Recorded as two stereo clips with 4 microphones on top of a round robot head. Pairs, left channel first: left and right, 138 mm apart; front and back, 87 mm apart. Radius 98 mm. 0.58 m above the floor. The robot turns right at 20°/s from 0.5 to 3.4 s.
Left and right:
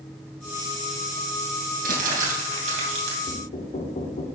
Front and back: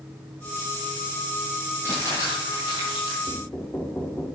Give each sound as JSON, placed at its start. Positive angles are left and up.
{"t": 1.8, "sound": "crumpling", "azimuth_deg": -75, "distance_m": 2.5}
{"t": 3.3, "sound": "knocking", "azimuth_deg": 65, "distance_m": 1.5}